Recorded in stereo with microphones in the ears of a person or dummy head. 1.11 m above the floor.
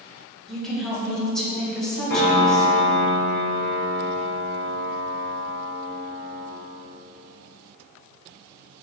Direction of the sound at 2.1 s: 50° left (ahead or behind).